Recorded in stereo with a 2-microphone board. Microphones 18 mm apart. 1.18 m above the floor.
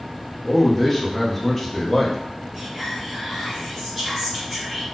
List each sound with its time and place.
0.4 s a man speaking: 10° left (ahead or behind), 0.7 m
2.5 s whispering: 5° right (ahead or behind), 1.6 m